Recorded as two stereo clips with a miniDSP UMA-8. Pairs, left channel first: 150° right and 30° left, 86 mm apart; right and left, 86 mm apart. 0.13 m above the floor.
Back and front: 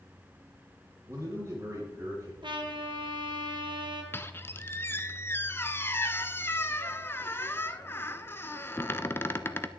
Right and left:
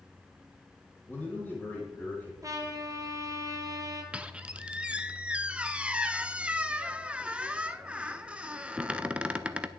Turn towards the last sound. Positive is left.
turn(degrees=160)